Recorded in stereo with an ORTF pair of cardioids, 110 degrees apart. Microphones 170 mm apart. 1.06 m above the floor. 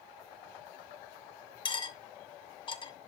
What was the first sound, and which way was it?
Cutlery clinking, 30° left.